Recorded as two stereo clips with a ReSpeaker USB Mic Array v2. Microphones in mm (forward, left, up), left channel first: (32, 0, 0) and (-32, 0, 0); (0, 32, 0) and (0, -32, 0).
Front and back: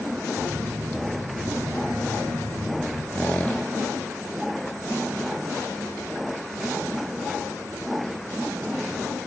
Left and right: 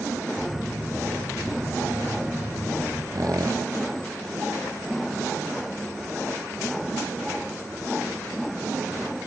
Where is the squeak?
70° right, 1.3 m.